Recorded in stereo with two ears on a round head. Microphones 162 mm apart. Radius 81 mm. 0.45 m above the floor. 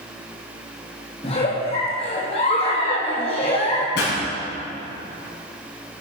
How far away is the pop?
About 5 m.